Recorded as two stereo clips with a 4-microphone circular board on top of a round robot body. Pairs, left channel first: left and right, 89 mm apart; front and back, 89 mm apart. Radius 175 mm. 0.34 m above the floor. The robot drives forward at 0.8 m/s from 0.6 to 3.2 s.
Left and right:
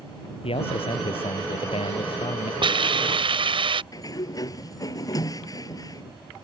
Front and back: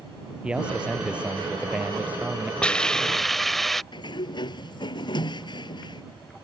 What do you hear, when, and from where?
0.4 s a man speaking: 100° left; by 2.5 s 110° left
2.6 s a hiss: 75° right; by 3.8 s 85° right
3.9 s a sliding door: 40° left